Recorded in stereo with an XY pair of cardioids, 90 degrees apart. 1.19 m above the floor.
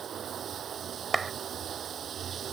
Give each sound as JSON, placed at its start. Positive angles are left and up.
{"t": 0.0, "sound": "running water", "azimuth_deg": -60}
{"t": 1.1, "sound": "a clap", "azimuth_deg": -30}